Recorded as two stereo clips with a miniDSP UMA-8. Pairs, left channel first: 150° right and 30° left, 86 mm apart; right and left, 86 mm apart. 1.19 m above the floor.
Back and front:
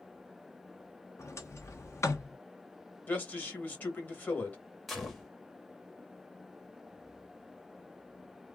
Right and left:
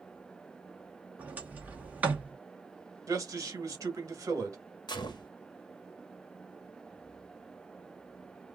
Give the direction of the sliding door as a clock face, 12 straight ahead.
7 o'clock.